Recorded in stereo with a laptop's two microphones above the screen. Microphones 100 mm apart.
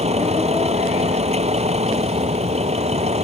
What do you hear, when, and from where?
0.0 s a vehicle: 85° right